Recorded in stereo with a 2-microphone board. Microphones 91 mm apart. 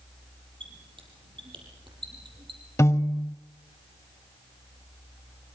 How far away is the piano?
About 0.6 m.